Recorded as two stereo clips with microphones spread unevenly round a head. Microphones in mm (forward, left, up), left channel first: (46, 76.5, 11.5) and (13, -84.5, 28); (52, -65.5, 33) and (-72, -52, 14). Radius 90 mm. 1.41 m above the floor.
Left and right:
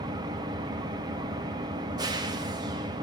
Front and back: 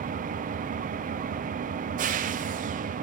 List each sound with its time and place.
0.0 s an engine running: 170° right, 0.7 m